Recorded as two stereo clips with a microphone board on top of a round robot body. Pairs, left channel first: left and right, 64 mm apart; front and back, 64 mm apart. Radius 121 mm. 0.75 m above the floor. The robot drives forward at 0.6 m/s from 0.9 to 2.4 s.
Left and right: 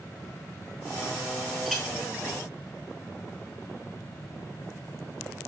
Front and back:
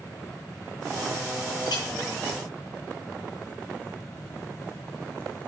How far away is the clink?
About 9.5 m.